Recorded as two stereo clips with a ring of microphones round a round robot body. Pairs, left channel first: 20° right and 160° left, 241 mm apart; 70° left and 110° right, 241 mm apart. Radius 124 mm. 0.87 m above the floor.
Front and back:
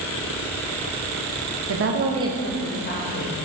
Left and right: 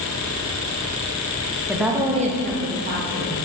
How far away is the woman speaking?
About 1.1 m.